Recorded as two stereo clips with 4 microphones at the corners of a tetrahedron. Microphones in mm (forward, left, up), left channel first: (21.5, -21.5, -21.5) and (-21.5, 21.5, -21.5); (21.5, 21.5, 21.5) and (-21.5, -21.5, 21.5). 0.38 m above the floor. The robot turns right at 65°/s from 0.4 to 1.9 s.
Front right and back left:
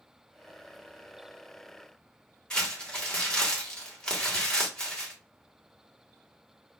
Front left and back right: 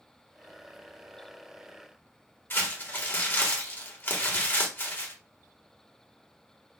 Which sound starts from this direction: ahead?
Crumpling, at 2.5 s.